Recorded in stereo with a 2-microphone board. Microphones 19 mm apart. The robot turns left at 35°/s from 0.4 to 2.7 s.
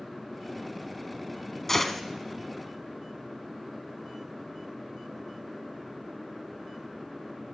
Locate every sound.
1.7 s a gunshot: 20° left (ahead or behind), 1.4 m; by 2.0 s 10° left (ahead or behind), 1.4 m